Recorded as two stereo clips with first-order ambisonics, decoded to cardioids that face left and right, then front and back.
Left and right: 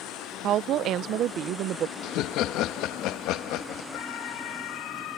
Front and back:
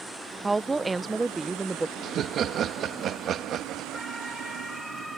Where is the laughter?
125° left.